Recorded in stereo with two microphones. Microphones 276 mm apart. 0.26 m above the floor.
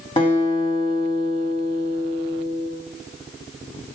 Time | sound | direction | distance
0.2 | a guitar | 20° left (ahead or behind) | 1.7 m